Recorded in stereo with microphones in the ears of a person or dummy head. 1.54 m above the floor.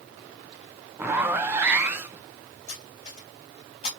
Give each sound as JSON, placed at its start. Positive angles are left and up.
{"t": 1.0, "sound": "a zipper", "side_deg": -15, "distance_m": 0.6}
{"t": 2.7, "sound": "cutlery clinking", "side_deg": 40, "distance_m": 1.7}